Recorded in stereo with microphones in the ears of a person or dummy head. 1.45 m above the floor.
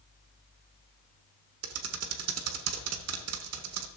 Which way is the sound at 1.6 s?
85° right.